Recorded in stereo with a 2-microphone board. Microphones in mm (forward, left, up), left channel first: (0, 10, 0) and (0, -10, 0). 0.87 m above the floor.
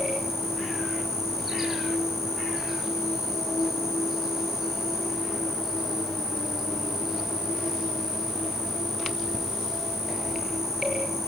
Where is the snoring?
No snoring in this recording.